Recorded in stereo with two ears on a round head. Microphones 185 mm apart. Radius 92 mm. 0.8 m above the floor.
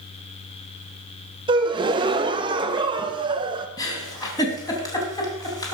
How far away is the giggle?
About 3 m.